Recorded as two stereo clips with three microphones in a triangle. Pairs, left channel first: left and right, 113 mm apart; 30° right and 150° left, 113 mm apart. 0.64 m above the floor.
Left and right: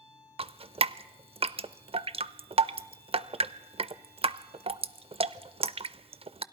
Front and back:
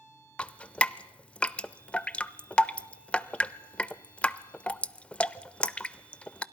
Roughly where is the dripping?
Right.